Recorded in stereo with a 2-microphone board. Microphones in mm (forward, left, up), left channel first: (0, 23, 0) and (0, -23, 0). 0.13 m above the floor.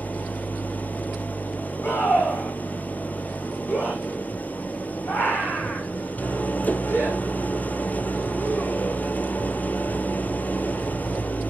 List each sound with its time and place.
0.0 s an engine running: 35° left (ahead or behind), 1.0 m
1.8 s a scream: 50° left (ahead or behind), 8 m